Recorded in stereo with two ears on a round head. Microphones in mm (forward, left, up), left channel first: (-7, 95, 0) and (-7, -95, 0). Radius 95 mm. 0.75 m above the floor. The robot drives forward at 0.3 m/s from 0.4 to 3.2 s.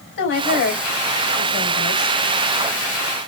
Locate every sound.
0.2 s a woman speaking: 60° left (ahead or behind), 3.5 m; by 2.2 s 50° left (ahead or behind), 4 m